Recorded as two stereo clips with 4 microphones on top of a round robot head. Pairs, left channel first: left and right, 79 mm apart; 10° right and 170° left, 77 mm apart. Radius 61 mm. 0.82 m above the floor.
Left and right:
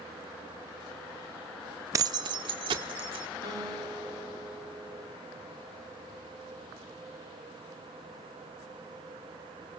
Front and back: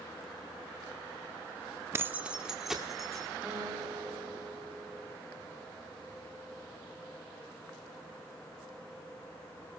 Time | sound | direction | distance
1.9 | keys jangling | 135° right | 0.5 m
3.4 | a guitar | 110° right | 6.5 m